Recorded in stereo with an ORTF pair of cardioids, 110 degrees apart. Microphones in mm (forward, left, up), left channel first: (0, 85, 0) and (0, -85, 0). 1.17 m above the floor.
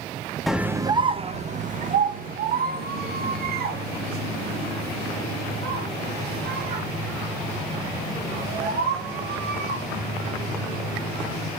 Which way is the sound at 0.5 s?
Straight ahead.